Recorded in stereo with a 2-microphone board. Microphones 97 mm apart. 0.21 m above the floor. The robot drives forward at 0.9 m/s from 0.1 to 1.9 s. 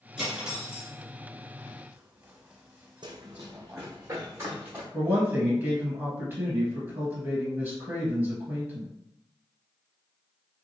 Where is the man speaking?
20° right (ahead or behind), 1.6 m.